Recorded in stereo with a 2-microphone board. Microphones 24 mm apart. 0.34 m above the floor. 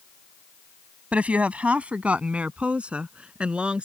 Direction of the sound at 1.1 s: 65° right (ahead or behind).